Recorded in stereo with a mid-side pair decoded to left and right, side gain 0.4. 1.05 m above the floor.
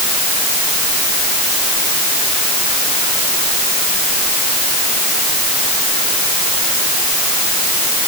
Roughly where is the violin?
No violin in this recording.